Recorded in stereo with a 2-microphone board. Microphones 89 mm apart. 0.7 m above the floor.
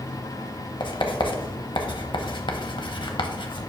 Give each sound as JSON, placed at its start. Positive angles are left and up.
{"t": 0.8, "sound": "writing", "side_deg": 60, "distance_m": 0.9}